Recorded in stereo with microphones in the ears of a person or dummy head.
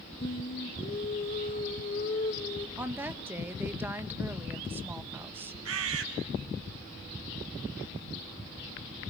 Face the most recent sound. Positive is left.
turn(degrees=-90)